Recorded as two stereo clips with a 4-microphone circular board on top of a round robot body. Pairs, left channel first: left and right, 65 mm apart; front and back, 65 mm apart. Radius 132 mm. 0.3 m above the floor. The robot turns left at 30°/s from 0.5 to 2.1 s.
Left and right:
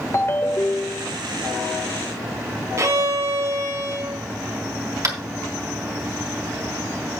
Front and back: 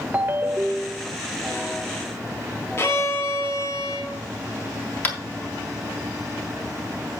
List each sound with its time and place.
0.1 s a ringtone: 125° left, 1.1 m; by 1.1 s 105° left, 1.1 m
2.8 s a violin: 50° right, 2 m
5.0 s tapping: 60° right, 3.5 m